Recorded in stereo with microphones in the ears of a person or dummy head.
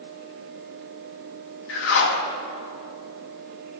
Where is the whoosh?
70° left (ahead or behind), 1.6 m.